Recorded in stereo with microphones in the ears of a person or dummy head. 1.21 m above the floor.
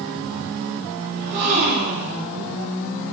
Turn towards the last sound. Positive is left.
turn(degrees=-55)  # may be behind; listen again after turning